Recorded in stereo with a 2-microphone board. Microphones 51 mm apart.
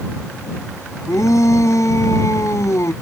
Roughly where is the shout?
Left.